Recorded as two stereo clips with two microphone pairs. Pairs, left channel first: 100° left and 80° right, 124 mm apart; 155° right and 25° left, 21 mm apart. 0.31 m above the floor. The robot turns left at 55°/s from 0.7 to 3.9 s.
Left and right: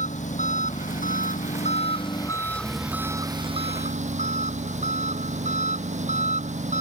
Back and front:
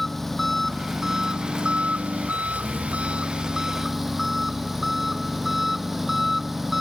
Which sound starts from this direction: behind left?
An engine running, at 0.0 s.